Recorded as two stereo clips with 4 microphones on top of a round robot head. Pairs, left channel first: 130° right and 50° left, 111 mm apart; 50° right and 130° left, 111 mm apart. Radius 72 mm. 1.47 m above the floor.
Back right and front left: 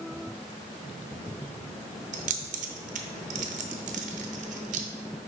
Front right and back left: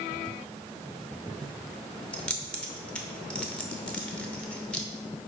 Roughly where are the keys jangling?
Ahead left.